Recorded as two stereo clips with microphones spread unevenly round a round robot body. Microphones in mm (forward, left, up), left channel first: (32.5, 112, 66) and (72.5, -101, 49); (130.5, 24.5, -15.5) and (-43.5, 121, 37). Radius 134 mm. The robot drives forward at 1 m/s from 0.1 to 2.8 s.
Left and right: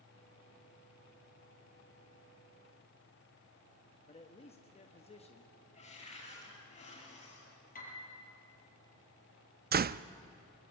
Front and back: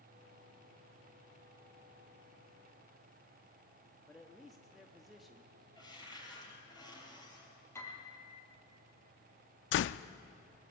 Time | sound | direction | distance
4.1 | a man speaking | 45° left | 1.4 m
5.8 | a cupboard door | 45° left | 8.5 m
7.8 | a piano | 50° left | 6 m
9.7 | a door slam | 35° right | 0.5 m